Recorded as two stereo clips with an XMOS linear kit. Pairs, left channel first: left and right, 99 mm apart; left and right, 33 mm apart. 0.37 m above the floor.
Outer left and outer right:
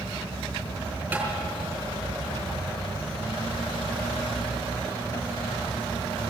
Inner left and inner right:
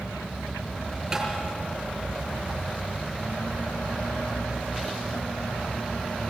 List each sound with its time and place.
1.1 s tapping: 20° right (ahead or behind), 5.5 m